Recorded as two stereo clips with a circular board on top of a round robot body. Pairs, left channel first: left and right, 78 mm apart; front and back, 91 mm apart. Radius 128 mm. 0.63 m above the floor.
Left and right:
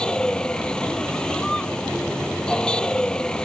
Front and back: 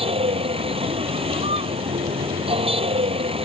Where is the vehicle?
170° left.